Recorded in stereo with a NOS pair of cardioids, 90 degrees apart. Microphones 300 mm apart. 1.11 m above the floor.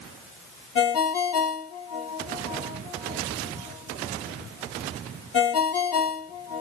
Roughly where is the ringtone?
Ahead left.